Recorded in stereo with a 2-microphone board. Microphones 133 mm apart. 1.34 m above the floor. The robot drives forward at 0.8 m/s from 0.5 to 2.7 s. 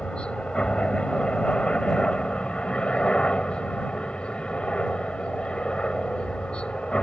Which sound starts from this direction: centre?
A helicopter, at 0.0 s.